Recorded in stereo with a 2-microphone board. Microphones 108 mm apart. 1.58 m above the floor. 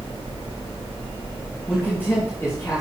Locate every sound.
1.7 s a man speaking: 15° left (ahead or behind), 2.5 m; by 2.8 s 30° left (ahead or behind), 3 m